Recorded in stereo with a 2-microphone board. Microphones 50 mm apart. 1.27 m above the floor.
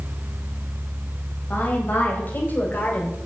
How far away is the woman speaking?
About 8.5 m.